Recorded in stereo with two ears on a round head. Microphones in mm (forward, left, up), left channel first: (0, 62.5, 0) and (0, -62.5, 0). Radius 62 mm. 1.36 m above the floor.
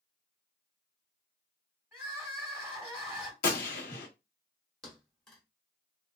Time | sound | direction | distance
1.9 | crying | 10° right (ahead or behind) | 2 m
3.4 | a gunshot | 70° left (ahead or behind) | 1.0 m
4.8 | a thud | 5° left (ahead or behind) | 0.9 m